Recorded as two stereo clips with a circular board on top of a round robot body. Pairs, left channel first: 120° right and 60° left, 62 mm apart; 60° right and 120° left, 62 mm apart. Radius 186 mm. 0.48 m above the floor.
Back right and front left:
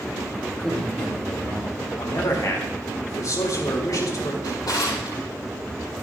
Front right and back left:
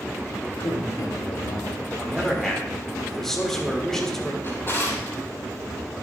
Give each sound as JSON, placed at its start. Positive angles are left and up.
{"t": 0.6, "sound": "a man speaking", "azimuth_deg": -40, "distance_m": 3.0}
{"t": 2.0, "sound": "a man speaking", "azimuth_deg": -145, "distance_m": 4.0}
{"t": 4.4, "sound": "a drawer", "azimuth_deg": -110, "distance_m": 5.0}